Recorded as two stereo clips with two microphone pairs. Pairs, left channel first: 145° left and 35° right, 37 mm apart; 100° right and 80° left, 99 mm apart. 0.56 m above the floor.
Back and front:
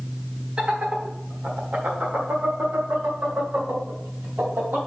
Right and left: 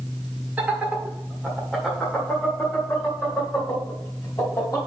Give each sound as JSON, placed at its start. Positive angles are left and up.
{"t": 0.6, "sound": "laughter", "azimuth_deg": 10, "distance_m": 1.4}